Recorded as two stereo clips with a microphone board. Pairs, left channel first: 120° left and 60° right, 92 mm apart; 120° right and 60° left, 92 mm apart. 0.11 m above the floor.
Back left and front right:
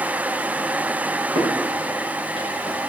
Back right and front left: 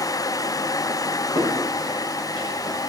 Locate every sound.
1.4 s footsteps: 90° right, 6 m